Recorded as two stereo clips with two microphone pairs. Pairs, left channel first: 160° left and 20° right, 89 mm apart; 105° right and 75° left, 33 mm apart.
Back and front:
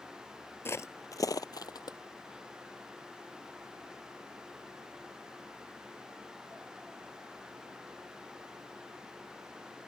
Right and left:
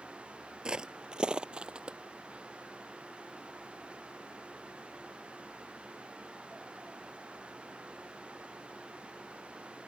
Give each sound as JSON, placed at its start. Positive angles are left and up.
{"t": 0.7, "sound": "footsteps", "azimuth_deg": 120}